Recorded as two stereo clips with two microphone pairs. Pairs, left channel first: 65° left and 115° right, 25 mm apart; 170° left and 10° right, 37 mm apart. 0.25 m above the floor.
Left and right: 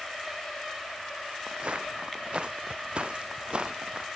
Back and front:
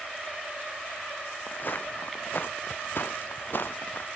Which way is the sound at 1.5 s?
160° right.